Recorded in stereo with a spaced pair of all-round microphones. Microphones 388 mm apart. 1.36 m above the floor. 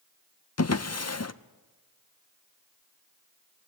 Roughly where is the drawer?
Left.